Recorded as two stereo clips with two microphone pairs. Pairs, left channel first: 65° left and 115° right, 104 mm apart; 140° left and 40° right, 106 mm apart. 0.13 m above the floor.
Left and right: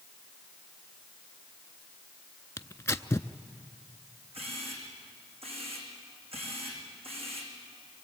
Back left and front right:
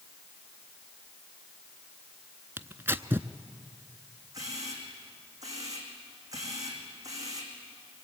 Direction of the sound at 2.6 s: 15° left.